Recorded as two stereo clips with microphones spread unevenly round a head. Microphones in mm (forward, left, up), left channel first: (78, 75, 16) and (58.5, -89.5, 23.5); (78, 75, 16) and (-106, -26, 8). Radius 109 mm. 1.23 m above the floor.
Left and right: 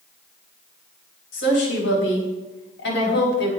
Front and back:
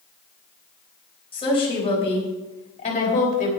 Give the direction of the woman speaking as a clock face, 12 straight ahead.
9 o'clock.